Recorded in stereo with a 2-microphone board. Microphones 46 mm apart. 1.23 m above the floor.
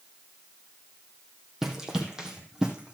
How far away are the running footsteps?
About 2.5 m.